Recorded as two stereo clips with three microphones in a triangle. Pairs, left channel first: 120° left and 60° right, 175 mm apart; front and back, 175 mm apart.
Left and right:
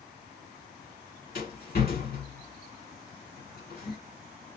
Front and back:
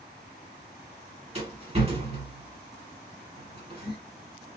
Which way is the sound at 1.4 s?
130° left.